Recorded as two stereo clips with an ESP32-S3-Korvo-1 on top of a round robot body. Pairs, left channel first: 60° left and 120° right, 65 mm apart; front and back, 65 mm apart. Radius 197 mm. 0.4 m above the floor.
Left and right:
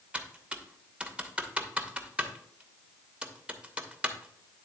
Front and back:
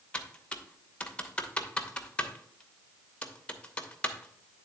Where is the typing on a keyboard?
60° right, 1.2 m.